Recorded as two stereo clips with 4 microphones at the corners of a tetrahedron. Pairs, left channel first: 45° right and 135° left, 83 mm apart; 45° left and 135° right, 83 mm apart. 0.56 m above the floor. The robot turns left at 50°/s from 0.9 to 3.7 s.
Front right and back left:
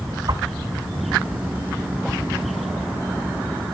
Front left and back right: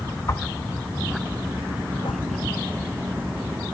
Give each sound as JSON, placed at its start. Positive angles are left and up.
{"t": 0.3, "sound": "a whoosh", "azimuth_deg": 105, "distance_m": 0.7}